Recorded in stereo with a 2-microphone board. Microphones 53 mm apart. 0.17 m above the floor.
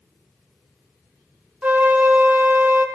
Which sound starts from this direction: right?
A flute, at 1.6 s.